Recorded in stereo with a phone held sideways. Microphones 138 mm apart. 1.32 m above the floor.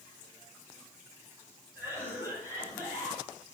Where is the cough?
20° right (ahead or behind), 6 m.